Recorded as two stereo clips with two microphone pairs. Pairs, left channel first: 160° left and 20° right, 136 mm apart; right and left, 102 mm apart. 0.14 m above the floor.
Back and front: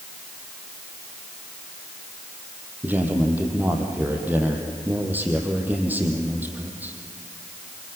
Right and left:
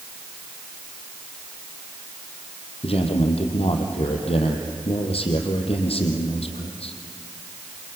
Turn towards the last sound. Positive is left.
turn(degrees=-95)